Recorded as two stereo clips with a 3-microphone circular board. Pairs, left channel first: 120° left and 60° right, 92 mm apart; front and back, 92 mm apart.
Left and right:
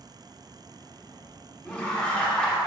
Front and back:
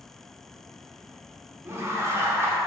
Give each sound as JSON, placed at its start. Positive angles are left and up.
{"t": 1.6, "sound": "laughter", "azimuth_deg": -170, "distance_m": 1.0}